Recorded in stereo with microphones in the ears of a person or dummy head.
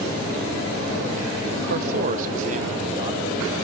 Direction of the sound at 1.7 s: 55° right (ahead or behind).